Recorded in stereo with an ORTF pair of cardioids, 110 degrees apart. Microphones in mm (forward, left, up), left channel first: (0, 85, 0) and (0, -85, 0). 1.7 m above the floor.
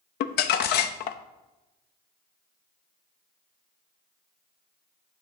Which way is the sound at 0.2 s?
70° left.